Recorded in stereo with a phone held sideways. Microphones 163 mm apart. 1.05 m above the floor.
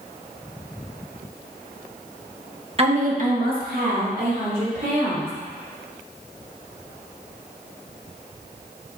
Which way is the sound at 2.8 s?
40° right (ahead or behind).